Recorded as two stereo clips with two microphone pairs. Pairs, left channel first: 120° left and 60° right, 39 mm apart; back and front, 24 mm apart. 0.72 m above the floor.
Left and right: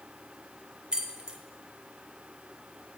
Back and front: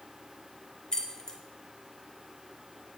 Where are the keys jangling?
120° right, 0.6 m.